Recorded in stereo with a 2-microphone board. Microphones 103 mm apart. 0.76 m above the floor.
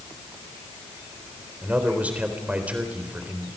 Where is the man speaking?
15° right (ahead or behind), 3.5 m.